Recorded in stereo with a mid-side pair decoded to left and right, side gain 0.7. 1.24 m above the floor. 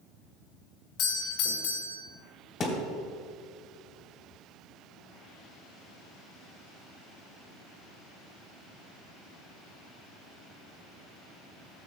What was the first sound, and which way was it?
A doorbell, 60° left.